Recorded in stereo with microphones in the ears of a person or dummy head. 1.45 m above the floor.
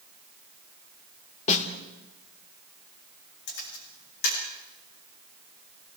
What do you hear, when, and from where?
1.5 s a snare drum: 35° left (ahead or behind), 2.5 m
3.5 s a camera shutter: 65° left (ahead or behind), 10 m